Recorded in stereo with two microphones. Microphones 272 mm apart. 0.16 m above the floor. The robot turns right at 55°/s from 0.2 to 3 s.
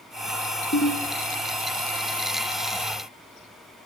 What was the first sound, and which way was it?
A ringtone, 45° left (ahead or behind).